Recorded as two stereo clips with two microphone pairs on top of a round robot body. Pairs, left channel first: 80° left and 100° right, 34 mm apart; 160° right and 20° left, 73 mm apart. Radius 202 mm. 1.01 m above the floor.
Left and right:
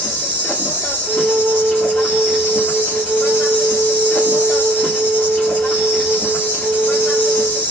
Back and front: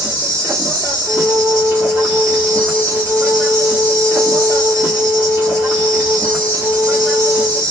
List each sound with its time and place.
0.0 s an insect: 90° left, 0.8 m
1.1 s a flute: 50° right, 0.7 m